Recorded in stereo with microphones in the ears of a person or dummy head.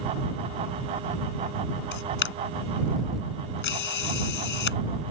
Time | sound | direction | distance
1.9 | a camera shutter | 60° left (ahead or behind) | ?